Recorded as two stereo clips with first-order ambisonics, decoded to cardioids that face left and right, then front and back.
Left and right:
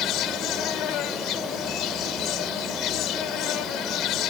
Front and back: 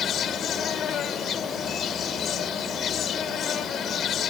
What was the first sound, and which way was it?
An insect, 55° left.